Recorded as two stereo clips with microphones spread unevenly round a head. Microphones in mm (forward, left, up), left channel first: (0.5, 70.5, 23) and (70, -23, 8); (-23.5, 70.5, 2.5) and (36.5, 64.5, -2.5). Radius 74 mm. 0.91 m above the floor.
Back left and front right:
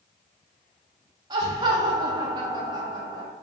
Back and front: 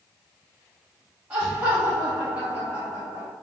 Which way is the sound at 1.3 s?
60° right.